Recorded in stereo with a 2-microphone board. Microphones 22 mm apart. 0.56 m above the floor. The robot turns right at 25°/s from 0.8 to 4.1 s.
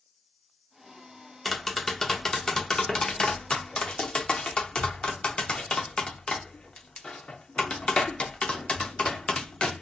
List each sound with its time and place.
1.4 s tapping: 5° left (ahead or behind), 0.6 m; by 9.8 s 50° left (ahead or behind), 0.6 m